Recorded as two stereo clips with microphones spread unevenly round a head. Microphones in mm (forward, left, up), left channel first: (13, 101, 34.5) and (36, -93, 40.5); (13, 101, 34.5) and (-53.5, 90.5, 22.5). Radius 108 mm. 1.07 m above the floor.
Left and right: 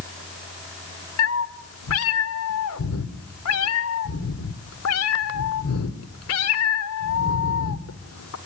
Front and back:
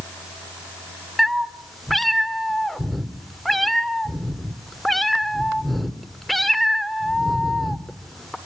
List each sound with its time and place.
1.2 s a cat meowing: 95° left, 1.9 m